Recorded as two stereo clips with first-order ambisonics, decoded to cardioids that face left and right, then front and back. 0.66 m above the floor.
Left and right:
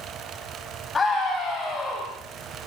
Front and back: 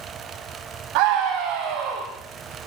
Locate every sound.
0.9 s a scream: 160° left, 4 m